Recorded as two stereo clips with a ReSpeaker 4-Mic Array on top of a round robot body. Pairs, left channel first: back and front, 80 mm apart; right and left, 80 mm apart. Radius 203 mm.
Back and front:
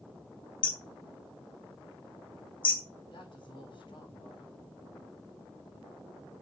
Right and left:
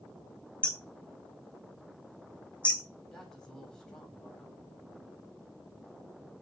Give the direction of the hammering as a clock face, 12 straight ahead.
6 o'clock.